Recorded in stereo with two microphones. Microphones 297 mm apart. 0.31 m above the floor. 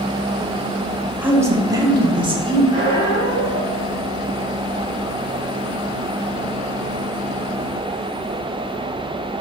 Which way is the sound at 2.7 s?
45° left (ahead or behind).